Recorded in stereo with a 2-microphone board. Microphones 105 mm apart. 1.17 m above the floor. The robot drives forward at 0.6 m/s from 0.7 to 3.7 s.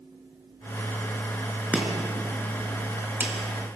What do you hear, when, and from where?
1.7 s chopping: 15° right (ahead or behind), 4.5 m